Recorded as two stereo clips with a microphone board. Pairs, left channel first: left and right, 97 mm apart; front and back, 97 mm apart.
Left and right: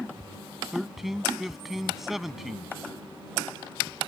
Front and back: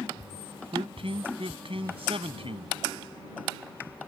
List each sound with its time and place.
0.7 s a man speaking: 175° right